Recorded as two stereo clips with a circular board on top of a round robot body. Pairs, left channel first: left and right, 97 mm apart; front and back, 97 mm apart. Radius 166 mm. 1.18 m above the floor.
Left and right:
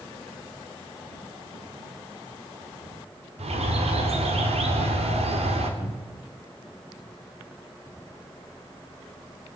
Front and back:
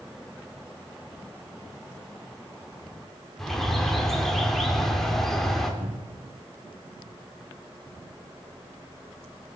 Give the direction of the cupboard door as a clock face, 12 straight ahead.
6 o'clock.